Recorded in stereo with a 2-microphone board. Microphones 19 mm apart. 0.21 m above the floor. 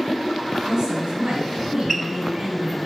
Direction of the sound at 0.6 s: 50° right (ahead or behind).